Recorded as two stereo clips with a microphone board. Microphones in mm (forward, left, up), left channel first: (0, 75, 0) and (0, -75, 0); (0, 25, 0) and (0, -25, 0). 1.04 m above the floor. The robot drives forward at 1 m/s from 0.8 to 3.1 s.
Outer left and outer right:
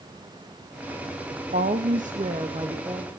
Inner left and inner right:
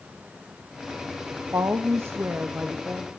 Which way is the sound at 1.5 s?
70° right (ahead or behind).